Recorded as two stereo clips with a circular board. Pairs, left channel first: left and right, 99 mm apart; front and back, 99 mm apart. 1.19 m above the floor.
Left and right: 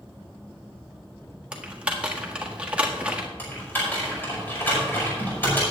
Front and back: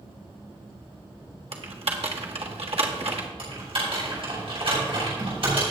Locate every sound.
1.5 s typing on a keyboard: 170° right, 1.5 m
3.4 s typing on a keyboard: 160° left, 6 m